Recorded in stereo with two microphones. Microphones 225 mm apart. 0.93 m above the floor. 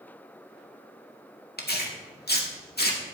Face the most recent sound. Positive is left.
turn(degrees=45)  # may be behind; listen again after turning